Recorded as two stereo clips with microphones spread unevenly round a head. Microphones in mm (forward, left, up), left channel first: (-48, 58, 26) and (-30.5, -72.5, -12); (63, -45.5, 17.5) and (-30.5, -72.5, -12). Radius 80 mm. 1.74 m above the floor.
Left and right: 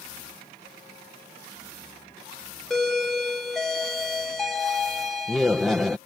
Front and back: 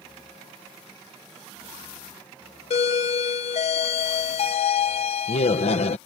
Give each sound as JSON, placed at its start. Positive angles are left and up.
{"t": 2.7, "sound": "a doorbell", "azimuth_deg": 10}